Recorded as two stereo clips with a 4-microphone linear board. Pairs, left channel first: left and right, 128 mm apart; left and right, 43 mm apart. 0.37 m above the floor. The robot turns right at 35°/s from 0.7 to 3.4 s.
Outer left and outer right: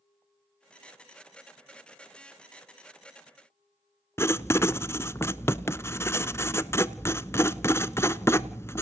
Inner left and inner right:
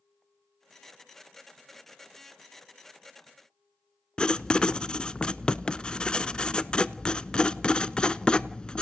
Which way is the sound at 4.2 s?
20° left (ahead or behind).